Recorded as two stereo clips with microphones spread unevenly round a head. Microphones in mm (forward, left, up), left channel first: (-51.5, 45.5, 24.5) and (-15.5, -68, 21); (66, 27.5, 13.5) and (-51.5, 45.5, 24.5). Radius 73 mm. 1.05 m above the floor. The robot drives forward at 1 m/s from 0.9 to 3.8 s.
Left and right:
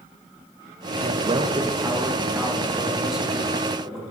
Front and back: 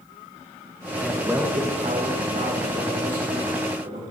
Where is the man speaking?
85° right, 1.0 m; by 4.0 s 160° right, 3 m.